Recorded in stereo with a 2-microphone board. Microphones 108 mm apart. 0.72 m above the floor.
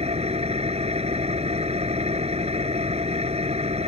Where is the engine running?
80° right.